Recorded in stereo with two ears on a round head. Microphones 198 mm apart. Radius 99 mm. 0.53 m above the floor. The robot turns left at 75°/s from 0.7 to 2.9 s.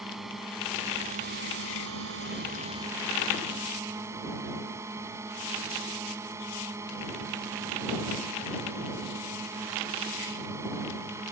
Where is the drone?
Straight ahead; by 11.3 s 165° right.